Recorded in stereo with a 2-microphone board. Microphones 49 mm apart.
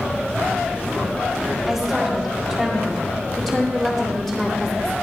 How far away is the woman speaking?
About 5.5 m.